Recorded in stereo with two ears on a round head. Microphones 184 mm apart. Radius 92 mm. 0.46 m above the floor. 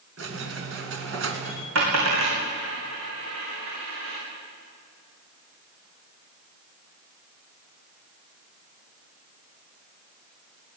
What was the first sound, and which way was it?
A squeak, 65° right (ahead or behind).